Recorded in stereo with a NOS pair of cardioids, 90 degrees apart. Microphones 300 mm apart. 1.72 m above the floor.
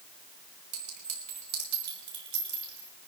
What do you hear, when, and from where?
0.7 s a clink: 70° right, 5 m